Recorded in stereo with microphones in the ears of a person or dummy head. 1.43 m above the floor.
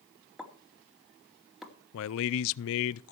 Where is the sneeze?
I don't hear a sneeze.